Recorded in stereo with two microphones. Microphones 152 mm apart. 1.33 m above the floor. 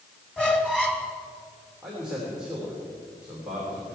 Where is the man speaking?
5° right (ahead or behind), 3.5 m.